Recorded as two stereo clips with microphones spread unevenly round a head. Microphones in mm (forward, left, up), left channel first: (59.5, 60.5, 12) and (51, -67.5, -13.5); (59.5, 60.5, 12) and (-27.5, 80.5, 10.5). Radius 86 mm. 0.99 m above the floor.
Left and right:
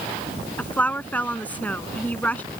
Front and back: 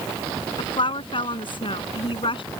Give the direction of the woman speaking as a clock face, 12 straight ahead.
12 o'clock.